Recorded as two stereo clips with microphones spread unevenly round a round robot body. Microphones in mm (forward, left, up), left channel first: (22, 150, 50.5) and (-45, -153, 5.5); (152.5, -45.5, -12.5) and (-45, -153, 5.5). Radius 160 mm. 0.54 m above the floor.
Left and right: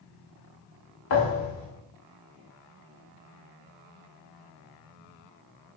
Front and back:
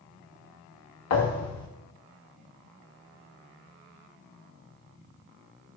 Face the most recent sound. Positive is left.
turn(degrees=30)